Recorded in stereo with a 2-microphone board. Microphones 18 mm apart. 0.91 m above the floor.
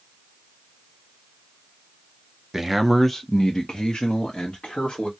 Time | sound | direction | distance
2.5 | a man speaking | 15° right (ahead or behind) | 0.6 m